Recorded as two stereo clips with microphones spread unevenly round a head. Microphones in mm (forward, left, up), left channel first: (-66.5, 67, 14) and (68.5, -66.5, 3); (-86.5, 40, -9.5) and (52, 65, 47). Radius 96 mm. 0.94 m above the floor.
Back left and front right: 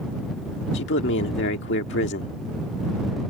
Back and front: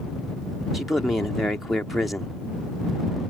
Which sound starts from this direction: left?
A man speaking, at 0.7 s.